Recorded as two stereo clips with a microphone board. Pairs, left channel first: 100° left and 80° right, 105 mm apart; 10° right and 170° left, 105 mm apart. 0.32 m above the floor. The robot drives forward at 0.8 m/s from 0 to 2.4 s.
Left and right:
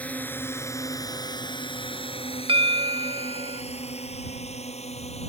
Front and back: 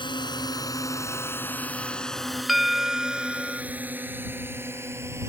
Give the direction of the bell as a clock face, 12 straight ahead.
3 o'clock.